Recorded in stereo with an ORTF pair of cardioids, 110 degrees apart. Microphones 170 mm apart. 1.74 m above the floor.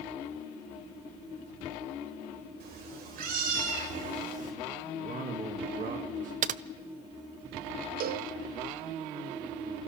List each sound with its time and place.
2.6 s a cat meowing: 65° right, 4.5 m; by 4.5 s 45° right, 4.5 m
5.0 s a man speaking: 50° right, 2.5 m
6.4 s typing on a keyboard: 50° right, 0.6 m
8.0 s a cowbell: 55° right, 0.9 m